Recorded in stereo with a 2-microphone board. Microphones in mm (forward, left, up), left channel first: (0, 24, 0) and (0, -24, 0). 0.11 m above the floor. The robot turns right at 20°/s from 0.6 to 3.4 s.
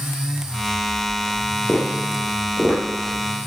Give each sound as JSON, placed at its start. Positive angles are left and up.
{"t": 1.7, "sound": "tapping", "side_deg": -30, "distance_m": 3.0}